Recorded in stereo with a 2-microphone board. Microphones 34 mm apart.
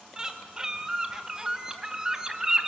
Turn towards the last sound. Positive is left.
turn(degrees=-15)  # may be behind; listen again after turning